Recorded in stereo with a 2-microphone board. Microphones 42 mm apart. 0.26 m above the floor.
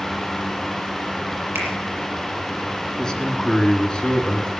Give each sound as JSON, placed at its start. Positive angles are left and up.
{"t": 1.6, "sound": "a finger snap", "side_deg": -80, "distance_m": 5.5}
{"t": 3.0, "sound": "a man speaking", "side_deg": 20, "distance_m": 1.7}